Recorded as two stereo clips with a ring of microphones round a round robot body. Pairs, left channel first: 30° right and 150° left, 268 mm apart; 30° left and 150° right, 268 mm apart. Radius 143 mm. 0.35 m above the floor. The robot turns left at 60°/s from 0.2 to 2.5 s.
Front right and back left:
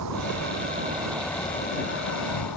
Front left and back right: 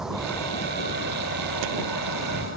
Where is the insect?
120° left; by 2.6 s 15° right.